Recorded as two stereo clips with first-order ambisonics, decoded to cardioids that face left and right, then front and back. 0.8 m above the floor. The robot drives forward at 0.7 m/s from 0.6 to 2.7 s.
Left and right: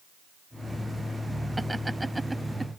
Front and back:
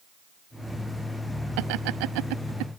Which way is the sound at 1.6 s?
175° right.